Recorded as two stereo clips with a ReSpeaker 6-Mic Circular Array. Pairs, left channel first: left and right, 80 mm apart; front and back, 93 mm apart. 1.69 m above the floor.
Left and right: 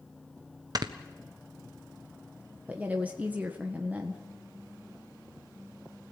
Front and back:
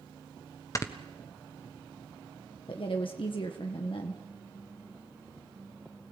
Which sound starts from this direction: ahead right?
Snoring, at 0.8 s.